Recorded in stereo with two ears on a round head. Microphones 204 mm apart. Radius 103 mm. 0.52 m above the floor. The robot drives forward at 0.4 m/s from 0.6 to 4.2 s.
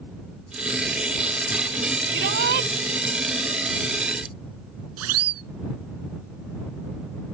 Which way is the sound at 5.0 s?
75° right (ahead or behind).